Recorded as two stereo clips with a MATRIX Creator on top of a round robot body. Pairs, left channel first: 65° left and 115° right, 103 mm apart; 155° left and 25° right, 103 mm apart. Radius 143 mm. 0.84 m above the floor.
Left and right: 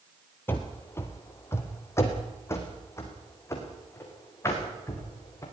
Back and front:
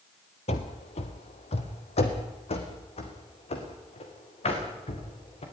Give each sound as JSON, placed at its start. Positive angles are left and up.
{"t": 0.5, "sound": "running footsteps", "azimuth_deg": 140, "distance_m": 1.1}